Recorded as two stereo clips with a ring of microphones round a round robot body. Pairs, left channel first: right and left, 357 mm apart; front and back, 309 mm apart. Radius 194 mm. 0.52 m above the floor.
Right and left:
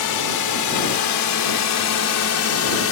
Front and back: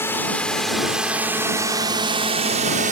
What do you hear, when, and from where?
0.0 s a drone: 85° right; by 2.9 s 125° right